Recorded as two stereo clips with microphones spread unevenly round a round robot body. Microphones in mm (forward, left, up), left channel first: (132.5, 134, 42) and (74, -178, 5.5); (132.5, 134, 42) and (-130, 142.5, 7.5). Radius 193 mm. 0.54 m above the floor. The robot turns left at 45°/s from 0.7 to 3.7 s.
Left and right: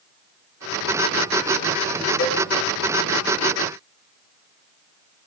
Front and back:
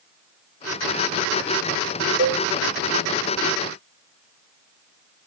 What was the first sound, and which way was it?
A cowbell, 145° left.